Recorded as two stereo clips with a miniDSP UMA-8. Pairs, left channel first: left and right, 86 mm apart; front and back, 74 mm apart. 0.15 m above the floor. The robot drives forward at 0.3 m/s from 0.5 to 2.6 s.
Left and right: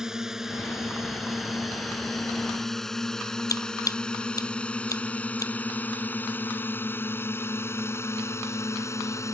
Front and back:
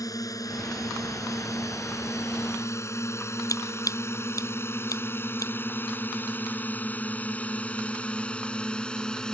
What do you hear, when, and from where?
0.0 s a drone: 10° right; by 9.3 s 75° left
3.5 s scissors: 40° left